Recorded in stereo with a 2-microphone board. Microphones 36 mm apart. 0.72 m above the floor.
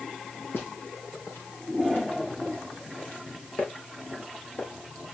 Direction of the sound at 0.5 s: 75° left (ahead or behind).